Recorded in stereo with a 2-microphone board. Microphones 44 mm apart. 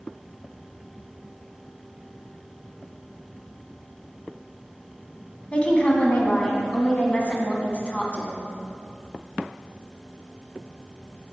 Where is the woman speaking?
25° left (ahead or behind), 1.3 m.